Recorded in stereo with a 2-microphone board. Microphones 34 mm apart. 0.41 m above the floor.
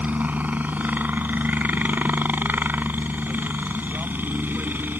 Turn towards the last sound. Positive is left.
turn(degrees=-70)  # may be behind; listen again after turning